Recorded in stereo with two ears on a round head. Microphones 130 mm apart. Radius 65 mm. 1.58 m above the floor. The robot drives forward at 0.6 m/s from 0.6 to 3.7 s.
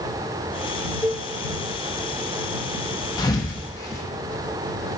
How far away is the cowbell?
About 0.7 m.